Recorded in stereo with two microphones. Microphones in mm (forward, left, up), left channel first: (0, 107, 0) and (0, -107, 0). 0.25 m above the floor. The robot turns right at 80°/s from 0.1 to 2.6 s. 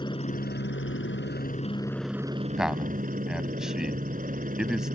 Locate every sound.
0.0 s a helicopter: 25° left; by 5.0 s 135° right
2.6 s a man speaking: centre (ahead or behind); by 5.0 s 5° right (ahead or behind)